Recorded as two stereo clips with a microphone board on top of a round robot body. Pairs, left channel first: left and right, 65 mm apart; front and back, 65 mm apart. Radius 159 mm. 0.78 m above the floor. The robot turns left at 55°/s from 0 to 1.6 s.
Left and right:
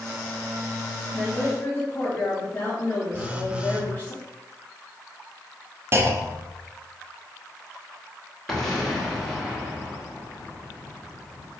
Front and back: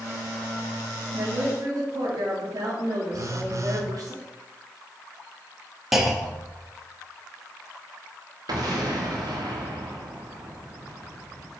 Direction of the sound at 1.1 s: Straight behind.